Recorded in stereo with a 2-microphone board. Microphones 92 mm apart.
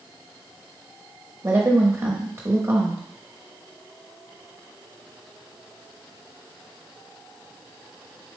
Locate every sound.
1.4 s a woman speaking: 30° right (ahead or behind), 0.9 m